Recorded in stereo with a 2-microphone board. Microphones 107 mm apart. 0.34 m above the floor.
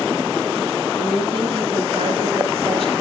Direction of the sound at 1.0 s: 65° right (ahead or behind).